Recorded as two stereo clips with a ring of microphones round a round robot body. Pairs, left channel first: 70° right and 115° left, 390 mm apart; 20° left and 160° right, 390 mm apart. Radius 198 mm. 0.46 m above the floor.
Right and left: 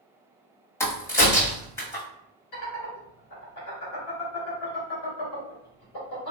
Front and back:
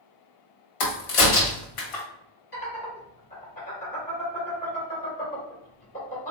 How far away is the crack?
About 1.3 m.